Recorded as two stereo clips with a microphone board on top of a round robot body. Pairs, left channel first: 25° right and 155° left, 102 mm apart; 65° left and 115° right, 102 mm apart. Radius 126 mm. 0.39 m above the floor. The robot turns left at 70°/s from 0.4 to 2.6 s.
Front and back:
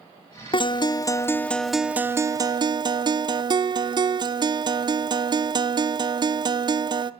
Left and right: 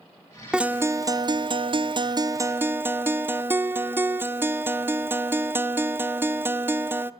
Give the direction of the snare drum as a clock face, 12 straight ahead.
No snare drum in this recording.